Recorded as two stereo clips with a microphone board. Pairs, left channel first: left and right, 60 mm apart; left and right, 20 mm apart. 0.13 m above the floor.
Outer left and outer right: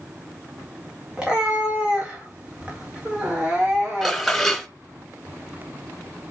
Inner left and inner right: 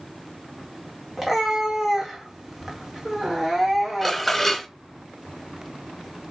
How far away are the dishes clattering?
About 1.1 m.